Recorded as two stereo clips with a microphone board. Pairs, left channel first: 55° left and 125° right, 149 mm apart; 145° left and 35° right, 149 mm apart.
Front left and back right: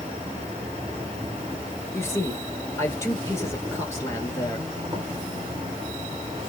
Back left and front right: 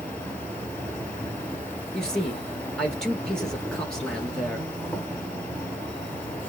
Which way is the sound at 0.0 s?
140° right.